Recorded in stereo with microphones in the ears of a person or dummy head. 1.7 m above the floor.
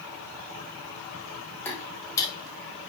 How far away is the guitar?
No guitar in this recording.